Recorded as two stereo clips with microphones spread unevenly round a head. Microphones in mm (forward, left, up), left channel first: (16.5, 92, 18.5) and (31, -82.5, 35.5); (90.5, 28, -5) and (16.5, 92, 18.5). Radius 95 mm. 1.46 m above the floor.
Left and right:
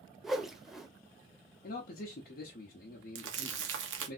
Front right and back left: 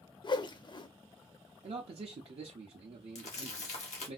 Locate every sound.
0.2 s a whoosh: 5° left, 0.5 m
1.6 s a man speaking: 120° left, 0.6 m
3.1 s crumpling: 65° right, 0.8 m